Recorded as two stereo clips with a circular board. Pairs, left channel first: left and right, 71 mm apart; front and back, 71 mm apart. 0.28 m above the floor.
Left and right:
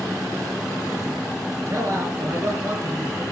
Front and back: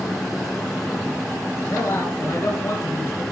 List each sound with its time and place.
1.7 s a man speaking: 30° right, 3.5 m